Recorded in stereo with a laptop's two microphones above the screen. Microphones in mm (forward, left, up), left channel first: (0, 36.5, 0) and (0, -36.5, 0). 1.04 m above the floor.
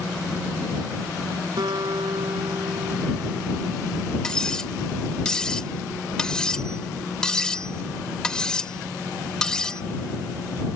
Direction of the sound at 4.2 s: 10° left (ahead or behind).